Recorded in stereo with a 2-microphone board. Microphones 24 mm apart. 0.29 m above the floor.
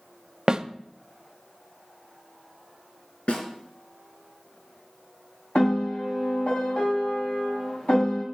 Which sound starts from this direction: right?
A snare drum, at 0.5 s.